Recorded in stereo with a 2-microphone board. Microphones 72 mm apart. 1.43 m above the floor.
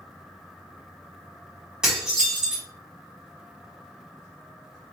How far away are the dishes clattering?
About 1.4 m.